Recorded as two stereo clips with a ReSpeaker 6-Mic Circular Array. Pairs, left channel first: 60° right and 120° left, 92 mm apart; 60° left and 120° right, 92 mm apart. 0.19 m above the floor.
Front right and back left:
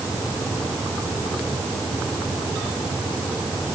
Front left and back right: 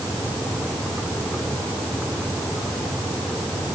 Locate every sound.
Only background noise.